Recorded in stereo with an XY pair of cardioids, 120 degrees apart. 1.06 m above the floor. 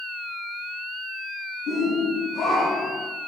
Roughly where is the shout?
Ahead left.